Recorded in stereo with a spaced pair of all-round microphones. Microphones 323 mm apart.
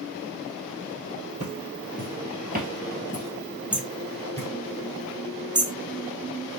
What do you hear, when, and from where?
1.4 s footsteps: 45° right (ahead or behind), 2 m; by 4.5 s 10° left (ahead or behind), 2 m
3.7 s hammering: 15° right (ahead or behind), 0.7 m